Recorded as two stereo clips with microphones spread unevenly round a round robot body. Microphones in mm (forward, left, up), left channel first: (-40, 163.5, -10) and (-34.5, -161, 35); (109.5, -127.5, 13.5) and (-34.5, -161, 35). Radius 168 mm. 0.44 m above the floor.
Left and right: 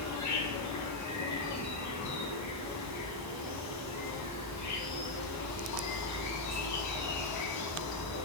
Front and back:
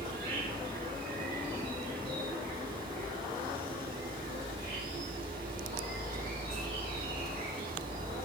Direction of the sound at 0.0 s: 120° left.